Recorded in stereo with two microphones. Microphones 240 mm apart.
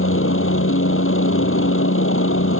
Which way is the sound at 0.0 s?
60° left (ahead or behind).